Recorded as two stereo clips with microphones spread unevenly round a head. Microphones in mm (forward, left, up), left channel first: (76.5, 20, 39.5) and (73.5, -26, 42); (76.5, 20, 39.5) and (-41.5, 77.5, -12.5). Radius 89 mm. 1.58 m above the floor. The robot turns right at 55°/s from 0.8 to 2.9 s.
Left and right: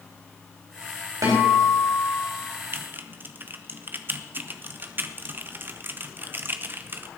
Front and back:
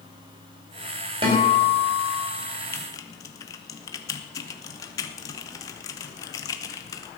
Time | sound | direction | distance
1.2 | a guitar | 140° right | 4.5 m
2.7 | typing on a keyboard | 75° right | 0.8 m